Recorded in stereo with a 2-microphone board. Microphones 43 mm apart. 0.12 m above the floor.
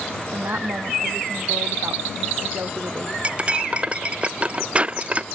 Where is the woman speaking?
60° right (ahead or behind).